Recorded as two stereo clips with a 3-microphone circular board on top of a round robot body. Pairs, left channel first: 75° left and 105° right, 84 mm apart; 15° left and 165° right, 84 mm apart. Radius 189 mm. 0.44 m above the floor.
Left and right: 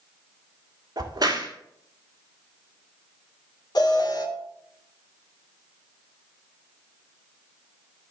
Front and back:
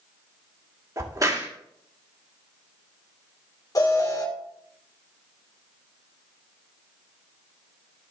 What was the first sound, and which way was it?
A crack, 125° right.